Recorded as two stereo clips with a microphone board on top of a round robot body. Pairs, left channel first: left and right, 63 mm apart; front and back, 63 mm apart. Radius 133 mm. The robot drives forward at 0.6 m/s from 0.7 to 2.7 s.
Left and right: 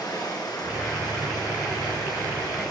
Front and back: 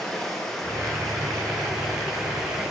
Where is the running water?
80° left, 5 m; by 2.7 s 95° left, 5 m.